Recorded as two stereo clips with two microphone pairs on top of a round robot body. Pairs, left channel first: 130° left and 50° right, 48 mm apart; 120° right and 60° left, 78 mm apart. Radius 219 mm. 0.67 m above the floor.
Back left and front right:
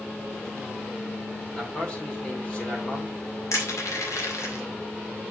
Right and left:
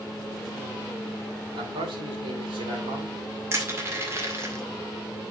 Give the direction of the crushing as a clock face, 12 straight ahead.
8 o'clock.